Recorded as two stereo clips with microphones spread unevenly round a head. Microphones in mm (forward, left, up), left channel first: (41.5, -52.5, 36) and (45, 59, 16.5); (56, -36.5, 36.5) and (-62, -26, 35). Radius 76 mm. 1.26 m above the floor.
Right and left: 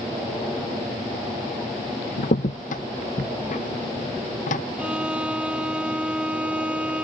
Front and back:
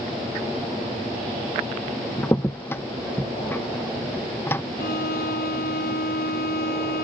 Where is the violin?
5° left.